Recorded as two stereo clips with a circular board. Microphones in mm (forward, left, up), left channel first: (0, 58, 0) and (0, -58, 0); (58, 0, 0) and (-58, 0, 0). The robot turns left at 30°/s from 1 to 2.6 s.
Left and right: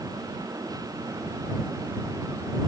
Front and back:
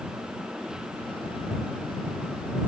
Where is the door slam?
No door slam in this recording.